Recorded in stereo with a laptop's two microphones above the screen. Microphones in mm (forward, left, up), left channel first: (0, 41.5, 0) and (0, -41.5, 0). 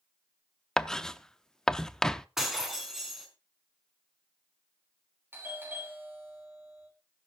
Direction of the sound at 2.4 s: 5° right (ahead or behind).